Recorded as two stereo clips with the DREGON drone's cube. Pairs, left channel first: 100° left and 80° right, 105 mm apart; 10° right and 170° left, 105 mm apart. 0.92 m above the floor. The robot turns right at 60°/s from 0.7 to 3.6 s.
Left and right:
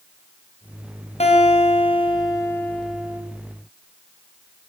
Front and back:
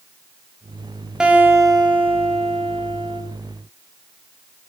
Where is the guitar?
85° left, 5.5 m; by 3.2 s 150° right, 5.5 m.